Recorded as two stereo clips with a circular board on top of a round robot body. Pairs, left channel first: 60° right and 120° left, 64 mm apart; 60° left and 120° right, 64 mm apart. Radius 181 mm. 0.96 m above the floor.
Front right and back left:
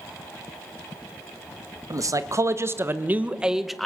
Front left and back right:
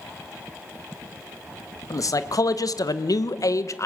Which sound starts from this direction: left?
A man speaking, at 1.9 s.